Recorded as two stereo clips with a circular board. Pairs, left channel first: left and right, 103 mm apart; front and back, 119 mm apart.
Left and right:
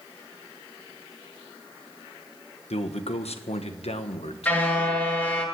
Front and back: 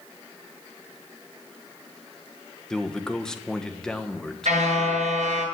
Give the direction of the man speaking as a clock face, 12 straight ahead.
9 o'clock.